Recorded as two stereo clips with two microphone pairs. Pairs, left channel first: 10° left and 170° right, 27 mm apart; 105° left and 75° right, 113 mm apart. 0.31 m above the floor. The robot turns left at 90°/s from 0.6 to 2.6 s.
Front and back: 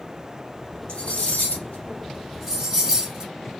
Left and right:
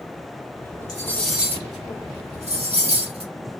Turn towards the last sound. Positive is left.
turn(degrees=-105)